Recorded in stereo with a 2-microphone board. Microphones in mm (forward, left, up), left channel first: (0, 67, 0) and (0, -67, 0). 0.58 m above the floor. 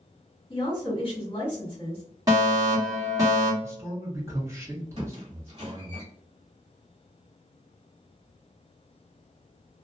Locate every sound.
0.5 s a woman speaking: 30° left (ahead or behind), 1.5 m
2.3 s a fire alarm: 25° right (ahead or behind), 1.9 m
3.6 s a man speaking: 20° right (ahead or behind), 1.4 m
5.0 s a squeak: 50° right (ahead or behind), 1.5 m